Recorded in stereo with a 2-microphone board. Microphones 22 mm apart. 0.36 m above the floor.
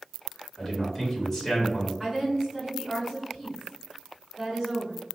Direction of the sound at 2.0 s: 10° right (ahead or behind).